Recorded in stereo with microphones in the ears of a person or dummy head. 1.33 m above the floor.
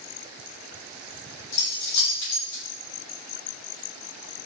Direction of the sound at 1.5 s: 80° left.